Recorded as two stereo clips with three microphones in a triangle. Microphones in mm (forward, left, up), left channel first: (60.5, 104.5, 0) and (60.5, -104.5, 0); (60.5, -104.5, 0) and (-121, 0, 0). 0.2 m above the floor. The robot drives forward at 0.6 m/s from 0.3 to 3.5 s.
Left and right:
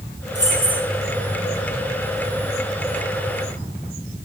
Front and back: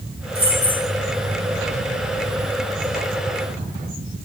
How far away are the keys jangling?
About 2.5 m.